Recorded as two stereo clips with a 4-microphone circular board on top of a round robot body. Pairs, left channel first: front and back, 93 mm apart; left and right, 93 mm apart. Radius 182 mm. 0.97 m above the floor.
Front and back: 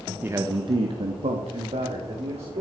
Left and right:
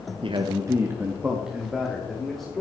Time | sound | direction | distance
0.2 | a man speaking | 110° right | 1.2 m